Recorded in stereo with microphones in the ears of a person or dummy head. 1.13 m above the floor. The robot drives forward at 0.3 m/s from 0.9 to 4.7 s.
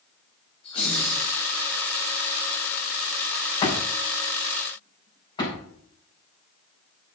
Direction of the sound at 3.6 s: 30° left (ahead or behind).